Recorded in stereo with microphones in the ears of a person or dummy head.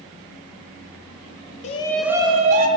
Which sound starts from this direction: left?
A shout, at 1.6 s.